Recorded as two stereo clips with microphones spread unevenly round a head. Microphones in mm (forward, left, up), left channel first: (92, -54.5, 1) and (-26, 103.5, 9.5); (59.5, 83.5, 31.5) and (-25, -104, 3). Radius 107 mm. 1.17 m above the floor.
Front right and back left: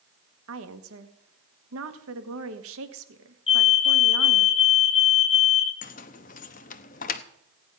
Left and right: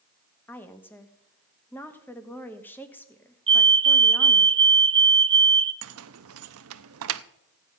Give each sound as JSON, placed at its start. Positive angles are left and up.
{"t": 0.5, "sound": "a woman speaking", "azimuth_deg": 150, "distance_m": 1.4}
{"t": 3.5, "sound": "a fire alarm", "azimuth_deg": -85, "distance_m": 1.2}
{"t": 5.8, "sound": "keys jangling", "azimuth_deg": -105, "distance_m": 0.8}